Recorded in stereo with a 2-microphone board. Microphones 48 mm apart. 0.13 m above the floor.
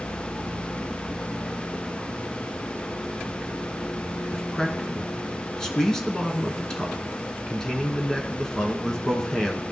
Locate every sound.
4.3 s a man speaking: 15° left (ahead or behind), 1.1 m